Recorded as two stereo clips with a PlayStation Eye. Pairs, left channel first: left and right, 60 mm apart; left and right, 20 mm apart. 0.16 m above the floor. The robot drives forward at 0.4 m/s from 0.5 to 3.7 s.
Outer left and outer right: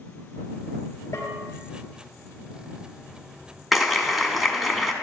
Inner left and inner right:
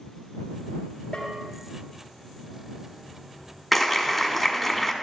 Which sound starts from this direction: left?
A bell, at 1.1 s.